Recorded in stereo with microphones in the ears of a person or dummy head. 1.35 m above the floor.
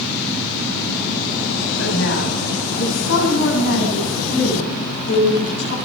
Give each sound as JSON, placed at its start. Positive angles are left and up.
{"t": 1.8, "sound": "a woman speaking", "side_deg": 80, "distance_m": 8.0}